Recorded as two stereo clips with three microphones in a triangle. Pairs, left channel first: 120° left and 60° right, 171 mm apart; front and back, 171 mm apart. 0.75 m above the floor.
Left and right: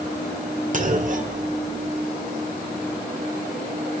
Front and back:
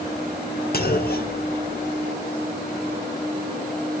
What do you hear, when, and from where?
0.7 s a clunk: 25° right, 1.1 m